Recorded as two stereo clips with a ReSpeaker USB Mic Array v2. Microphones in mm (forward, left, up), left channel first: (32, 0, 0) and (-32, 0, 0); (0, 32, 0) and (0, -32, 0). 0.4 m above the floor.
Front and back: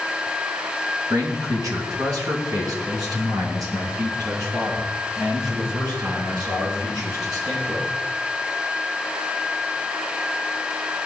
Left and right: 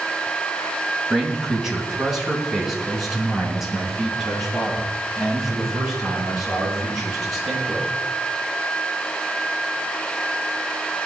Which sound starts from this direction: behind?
A man speaking, at 1.1 s.